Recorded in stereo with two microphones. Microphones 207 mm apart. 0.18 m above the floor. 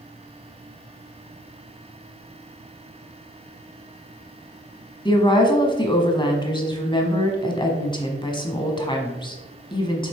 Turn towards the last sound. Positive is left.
turn(degrees=20)  # may be behind; listen again after turning